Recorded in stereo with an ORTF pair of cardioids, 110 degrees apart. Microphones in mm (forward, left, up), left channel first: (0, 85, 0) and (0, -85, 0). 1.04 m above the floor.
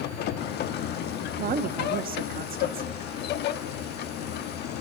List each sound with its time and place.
0.0 s a machine running: 65° left, 1.3 m
1.4 s a woman speaking: 55° right, 1.8 m